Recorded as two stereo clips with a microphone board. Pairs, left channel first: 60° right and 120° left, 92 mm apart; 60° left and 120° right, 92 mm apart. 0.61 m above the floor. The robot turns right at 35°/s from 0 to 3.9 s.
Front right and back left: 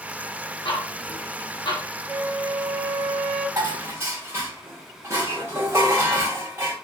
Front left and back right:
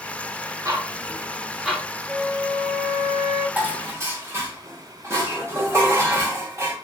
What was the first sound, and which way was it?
Ticking, 70° right.